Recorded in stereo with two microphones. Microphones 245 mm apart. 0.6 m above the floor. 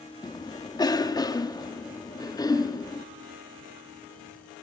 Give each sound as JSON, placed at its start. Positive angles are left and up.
{"t": 0.2, "sound": "a cough", "side_deg": 15, "distance_m": 1.0}